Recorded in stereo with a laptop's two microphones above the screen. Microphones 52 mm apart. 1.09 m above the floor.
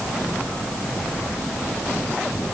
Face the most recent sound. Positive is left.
No sound to turn to.